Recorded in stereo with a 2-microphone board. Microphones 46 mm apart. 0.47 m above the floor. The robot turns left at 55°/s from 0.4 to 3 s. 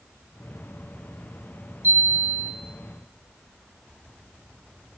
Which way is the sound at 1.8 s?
55° right.